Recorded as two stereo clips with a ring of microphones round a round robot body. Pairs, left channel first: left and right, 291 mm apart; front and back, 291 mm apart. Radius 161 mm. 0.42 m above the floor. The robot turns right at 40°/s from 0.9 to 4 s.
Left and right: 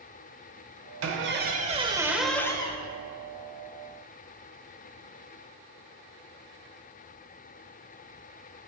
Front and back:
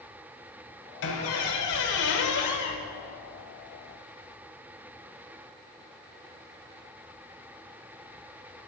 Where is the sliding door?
No sliding door in this recording.